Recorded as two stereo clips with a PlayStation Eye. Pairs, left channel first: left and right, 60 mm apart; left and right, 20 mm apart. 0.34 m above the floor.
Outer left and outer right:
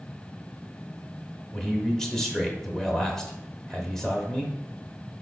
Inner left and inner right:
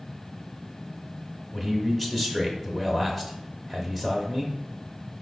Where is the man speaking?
10° left (ahead or behind), 0.9 m.